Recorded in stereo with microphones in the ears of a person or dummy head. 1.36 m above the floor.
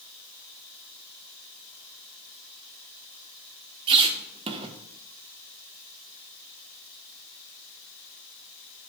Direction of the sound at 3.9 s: 30° right (ahead or behind).